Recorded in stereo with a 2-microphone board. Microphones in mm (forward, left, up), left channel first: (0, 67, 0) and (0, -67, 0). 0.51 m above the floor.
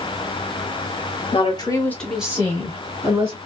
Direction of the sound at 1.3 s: 40° left (ahead or behind).